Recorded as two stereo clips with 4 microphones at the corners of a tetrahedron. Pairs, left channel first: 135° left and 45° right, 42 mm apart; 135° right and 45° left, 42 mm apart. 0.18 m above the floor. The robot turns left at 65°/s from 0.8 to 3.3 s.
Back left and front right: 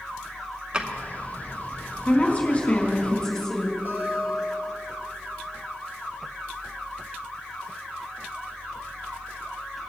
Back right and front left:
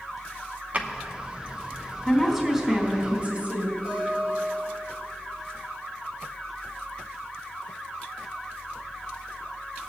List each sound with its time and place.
0.7 s a drawer: 15° left, 0.9 m; by 0.9 s 10° left, 0.9 m
2.0 s a woman speaking: 145° left, 1.7 m; by 3.8 s 65° left, 1.7 m
3.9 s a guitar: 20° right, 4 m